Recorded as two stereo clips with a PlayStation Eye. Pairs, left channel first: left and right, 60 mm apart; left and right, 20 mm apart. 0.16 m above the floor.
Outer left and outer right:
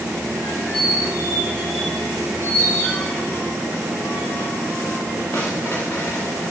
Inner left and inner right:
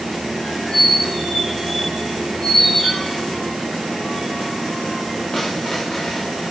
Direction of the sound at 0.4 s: 40° left (ahead or behind).